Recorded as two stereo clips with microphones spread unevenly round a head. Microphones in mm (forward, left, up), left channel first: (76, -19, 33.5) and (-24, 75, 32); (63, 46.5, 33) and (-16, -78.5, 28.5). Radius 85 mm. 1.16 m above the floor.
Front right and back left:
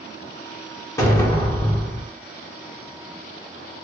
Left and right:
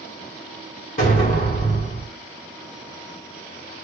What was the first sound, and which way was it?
An explosion, 25° left.